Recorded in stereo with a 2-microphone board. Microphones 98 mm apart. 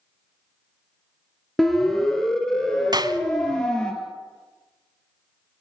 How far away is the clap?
About 1.2 m.